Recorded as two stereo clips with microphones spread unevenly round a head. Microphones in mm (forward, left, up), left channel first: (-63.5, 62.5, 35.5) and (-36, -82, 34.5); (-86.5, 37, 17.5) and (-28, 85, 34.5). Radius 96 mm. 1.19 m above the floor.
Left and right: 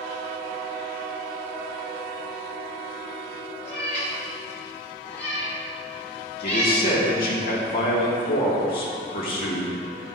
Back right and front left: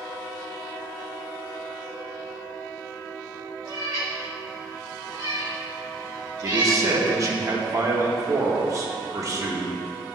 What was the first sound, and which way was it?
A cat meowing, 40° left.